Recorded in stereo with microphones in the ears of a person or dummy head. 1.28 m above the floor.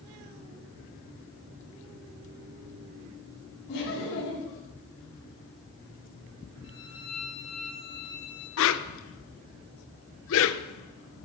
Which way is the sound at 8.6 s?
65° left (ahead or behind).